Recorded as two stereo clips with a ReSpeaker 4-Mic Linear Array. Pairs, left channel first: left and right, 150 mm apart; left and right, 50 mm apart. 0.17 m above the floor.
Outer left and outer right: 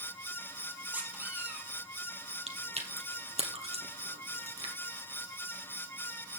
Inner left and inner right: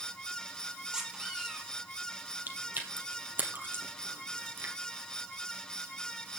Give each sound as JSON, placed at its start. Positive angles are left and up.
{"t": 0.9, "sound": "a squeak", "side_deg": -10, "distance_m": 3.0}
{"t": 2.5, "sound": "chewing", "side_deg": -45, "distance_m": 2.0}